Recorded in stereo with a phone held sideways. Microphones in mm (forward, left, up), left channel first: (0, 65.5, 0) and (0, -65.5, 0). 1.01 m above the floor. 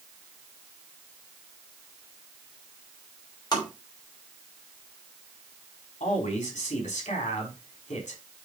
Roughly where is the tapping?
Left.